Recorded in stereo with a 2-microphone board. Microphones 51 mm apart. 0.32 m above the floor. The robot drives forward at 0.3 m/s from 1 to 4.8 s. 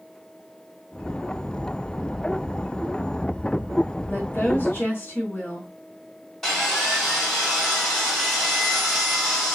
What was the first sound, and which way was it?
A woman speaking, 55° left (ahead or behind).